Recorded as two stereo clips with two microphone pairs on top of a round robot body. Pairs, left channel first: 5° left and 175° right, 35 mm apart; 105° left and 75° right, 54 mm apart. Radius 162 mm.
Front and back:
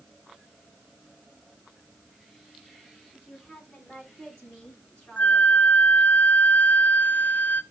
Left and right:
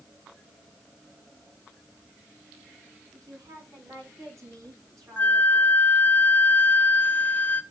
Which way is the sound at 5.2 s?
45° left.